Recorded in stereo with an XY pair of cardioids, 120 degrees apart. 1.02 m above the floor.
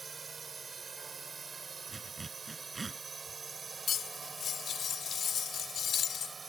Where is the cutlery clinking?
50° left.